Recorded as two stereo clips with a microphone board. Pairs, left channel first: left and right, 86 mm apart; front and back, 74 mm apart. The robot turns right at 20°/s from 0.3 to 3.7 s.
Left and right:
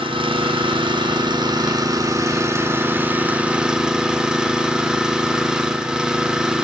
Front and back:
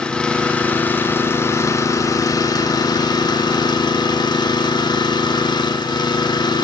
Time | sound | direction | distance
0.0 | an engine running | 75° right | 0.9 m